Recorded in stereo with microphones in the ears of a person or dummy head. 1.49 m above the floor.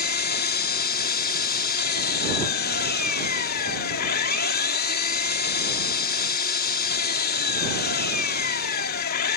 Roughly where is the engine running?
Left.